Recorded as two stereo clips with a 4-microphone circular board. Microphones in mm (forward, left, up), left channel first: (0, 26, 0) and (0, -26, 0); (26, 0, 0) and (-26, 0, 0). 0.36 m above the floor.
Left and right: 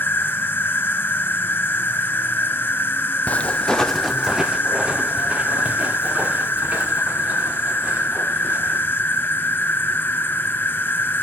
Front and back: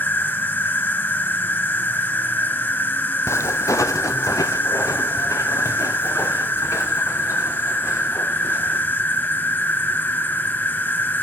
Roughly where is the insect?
Ahead left.